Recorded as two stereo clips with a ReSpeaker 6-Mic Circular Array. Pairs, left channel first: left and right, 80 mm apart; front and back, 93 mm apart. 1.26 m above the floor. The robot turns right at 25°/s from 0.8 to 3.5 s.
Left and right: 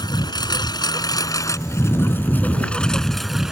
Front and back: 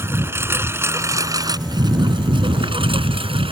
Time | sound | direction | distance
0.0 | a lawn mower | 120° left | ?